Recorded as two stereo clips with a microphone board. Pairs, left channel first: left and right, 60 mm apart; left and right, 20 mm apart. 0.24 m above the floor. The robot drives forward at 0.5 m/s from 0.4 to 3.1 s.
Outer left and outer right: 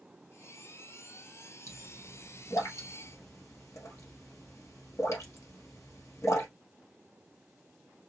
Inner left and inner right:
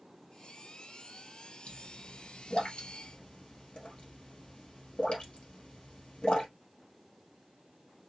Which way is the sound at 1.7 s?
80° left.